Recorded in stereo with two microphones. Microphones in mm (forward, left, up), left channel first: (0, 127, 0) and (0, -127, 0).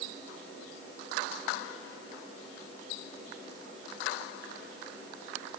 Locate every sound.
Only background noise.